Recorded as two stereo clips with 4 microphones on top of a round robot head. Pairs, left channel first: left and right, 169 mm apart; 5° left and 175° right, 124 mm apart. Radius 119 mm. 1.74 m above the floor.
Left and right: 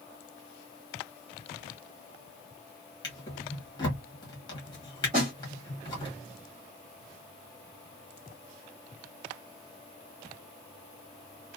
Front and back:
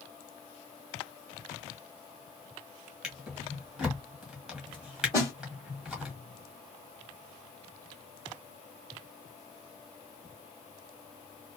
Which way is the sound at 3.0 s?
105° left.